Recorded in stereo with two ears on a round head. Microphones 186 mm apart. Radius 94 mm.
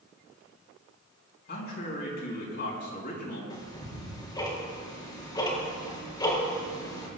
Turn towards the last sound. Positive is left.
turn(degrees=20)  # may be behind; listen again after turning